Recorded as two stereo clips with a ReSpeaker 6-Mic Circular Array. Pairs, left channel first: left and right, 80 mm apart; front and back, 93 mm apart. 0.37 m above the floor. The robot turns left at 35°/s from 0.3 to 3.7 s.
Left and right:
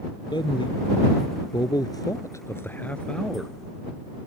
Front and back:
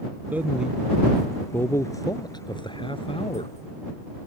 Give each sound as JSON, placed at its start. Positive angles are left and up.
{"t": 0.3, "sound": "a man speaking", "azimuth_deg": 110}